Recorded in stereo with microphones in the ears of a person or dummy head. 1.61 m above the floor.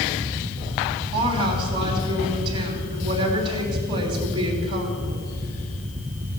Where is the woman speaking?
30° right (ahead or behind), 3 m.